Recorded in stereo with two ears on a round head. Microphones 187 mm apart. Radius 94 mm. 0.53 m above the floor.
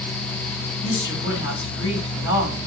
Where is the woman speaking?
60° left (ahead or behind), 3 m.